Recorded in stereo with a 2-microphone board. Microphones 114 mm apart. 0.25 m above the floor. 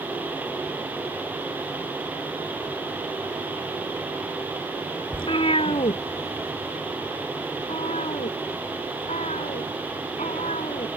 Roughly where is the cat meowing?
Left.